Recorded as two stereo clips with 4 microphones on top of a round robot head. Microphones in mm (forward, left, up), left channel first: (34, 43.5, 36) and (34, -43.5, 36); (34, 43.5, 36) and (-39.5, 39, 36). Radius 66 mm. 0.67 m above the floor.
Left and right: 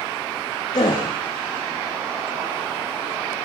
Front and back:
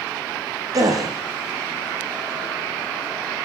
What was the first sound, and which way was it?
A gasp, 145° left.